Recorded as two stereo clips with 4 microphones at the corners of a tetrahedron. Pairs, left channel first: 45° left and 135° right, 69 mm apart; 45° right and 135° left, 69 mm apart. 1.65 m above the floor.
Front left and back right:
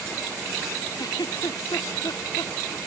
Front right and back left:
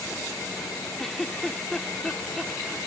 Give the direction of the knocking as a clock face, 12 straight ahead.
I don't hear knocking.